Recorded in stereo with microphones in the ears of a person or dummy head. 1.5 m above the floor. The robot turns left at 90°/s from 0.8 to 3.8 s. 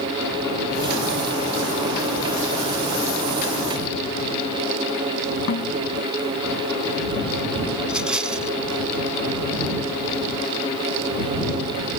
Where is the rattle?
5° right (ahead or behind).